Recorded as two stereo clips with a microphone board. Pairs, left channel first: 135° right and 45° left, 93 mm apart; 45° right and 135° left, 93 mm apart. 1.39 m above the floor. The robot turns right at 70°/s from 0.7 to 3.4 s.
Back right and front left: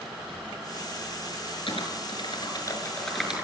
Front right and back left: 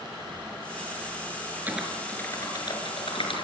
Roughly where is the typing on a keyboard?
Behind right.